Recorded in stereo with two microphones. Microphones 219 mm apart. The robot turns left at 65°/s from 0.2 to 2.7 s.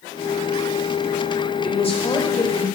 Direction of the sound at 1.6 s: 25° left (ahead or behind).